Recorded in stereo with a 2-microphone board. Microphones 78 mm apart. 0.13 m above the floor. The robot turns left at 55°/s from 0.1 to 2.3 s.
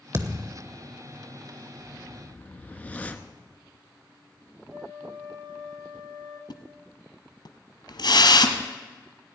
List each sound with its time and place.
0.1 s a thud: 35° right (ahead or behind), 0.8 m; by 0.6 s 15° right (ahead or behind), 0.8 m
1.8 s a whoosh: 35° left (ahead or behind), 0.7 m; by 3.3 s 20° left (ahead or behind), 0.7 m
4.7 s a flute: 70° right (ahead or behind), 4 m
6.5 s a splash: 65° left (ahead or behind), 1.0 m